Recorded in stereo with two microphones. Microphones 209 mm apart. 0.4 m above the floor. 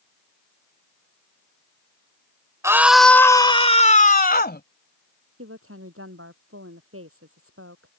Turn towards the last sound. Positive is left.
turn(degrees=-80)